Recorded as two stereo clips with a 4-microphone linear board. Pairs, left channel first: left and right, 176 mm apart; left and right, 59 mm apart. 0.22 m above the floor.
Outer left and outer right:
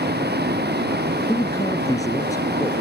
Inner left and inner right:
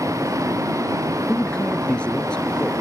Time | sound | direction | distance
0.0 | a vehicle | 80° right | ?
1.3 | a man speaking | 20° left (ahead or behind) | ?